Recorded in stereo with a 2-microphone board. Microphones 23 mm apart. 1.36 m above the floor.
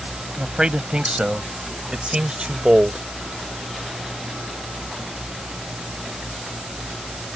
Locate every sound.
0.4 s a man speaking: 45° right (ahead or behind)